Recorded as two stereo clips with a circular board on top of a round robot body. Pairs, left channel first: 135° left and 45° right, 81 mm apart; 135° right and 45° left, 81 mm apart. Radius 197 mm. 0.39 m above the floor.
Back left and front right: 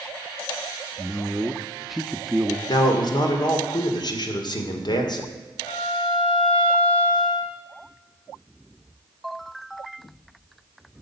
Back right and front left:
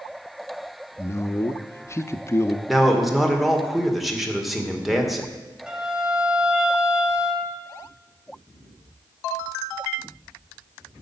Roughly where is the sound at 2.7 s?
Behind left.